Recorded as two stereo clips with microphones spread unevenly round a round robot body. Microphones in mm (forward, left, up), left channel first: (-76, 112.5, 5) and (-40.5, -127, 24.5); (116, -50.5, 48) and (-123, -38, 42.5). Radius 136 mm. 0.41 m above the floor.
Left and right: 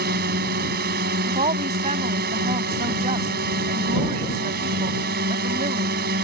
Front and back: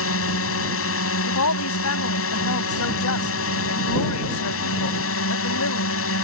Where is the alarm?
No alarm in this recording.